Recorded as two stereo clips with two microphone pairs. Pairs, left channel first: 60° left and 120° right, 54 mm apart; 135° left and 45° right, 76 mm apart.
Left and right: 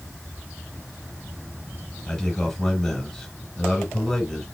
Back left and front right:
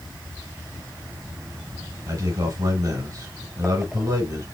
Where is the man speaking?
20° right, 2.5 m.